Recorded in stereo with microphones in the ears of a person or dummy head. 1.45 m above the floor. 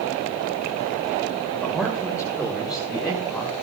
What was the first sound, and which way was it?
A man speaking, 10° right (ahead or behind).